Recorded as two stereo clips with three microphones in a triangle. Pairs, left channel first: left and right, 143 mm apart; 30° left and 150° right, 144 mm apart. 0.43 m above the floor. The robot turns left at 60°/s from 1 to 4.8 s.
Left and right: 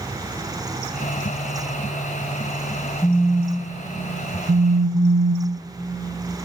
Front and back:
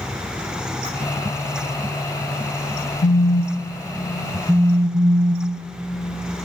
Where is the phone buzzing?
20° left, 0.5 m; by 5.7 s 90° right, 0.5 m.